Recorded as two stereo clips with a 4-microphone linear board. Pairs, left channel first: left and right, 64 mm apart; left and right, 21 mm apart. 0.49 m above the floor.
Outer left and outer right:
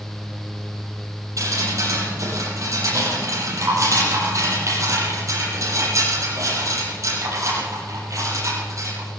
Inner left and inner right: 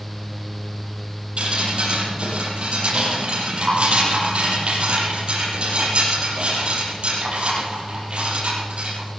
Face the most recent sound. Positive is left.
turn(degrees=-55)  # may be behind; listen again after turning